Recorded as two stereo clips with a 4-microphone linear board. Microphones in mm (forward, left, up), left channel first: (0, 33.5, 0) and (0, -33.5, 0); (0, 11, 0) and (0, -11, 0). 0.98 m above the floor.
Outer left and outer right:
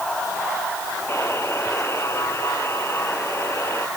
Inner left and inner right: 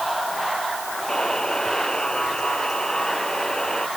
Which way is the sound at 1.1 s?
40° left (ahead or behind).